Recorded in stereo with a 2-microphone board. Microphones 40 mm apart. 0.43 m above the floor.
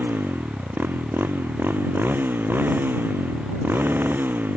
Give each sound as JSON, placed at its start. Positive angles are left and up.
{"t": 0.0, "sound": "a motorcycle", "side_deg": -65}